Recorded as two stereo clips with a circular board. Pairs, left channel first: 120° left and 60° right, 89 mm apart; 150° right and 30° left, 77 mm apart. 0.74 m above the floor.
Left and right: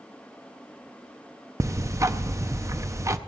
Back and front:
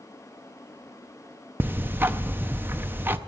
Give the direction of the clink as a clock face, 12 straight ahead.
No clink in this recording.